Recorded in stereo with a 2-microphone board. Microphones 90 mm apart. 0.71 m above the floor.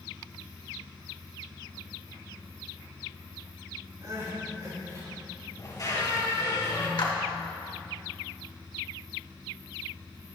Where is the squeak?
40° left (ahead or behind), 3.5 m.